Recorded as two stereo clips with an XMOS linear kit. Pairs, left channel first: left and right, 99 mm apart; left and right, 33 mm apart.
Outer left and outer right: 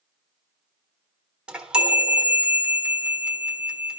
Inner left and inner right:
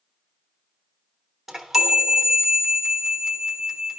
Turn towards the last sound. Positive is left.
turn(degrees=-10)  # may be behind; listen again after turning